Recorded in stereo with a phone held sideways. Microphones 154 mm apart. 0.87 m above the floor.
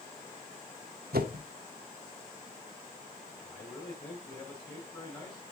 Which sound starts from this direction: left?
A man speaking, at 3.4 s.